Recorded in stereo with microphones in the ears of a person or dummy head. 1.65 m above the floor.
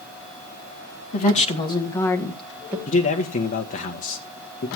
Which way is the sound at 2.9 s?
45° left (ahead or behind).